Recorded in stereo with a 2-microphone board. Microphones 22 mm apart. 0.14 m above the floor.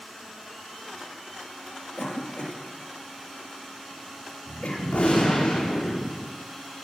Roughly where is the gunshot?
Left.